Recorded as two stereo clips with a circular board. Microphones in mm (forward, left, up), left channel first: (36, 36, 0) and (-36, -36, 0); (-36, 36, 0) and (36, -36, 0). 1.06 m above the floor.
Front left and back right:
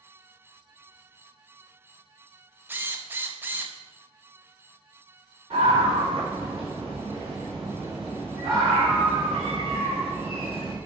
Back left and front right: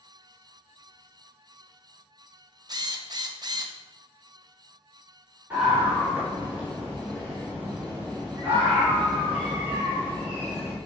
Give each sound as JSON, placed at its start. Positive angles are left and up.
{"t": 2.7, "sound": "a drill", "azimuth_deg": -70, "distance_m": 0.8}
{"t": 5.5, "sound": "a scream", "azimuth_deg": -120, "distance_m": 3.5}